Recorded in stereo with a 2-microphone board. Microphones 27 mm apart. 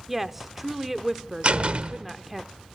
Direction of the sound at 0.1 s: 5° right (ahead or behind).